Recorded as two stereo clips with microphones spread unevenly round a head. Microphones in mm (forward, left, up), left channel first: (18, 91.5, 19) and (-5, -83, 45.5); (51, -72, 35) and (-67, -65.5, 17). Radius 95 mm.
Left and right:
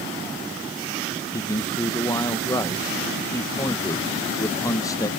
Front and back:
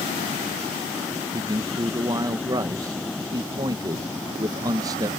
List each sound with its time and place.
1.3 s a man speaking: 140° left